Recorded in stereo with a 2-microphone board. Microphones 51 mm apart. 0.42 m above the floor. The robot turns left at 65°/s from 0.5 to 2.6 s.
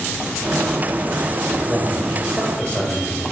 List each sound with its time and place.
1.7 s a man speaking: 150° right, 1.6 m; by 3.2 s 150° left, 1.6 m